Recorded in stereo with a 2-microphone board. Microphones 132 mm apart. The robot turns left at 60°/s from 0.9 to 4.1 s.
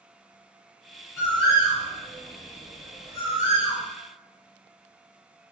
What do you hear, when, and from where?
1.2 s a bird: 15° left (ahead or behind), 1.5 m; by 3.9 s 30° right (ahead or behind), 1.5 m